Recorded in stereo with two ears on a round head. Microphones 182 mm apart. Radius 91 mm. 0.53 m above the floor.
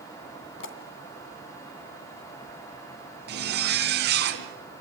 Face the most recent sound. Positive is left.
turn(degrees=-55)  # may be behind; listen again after turning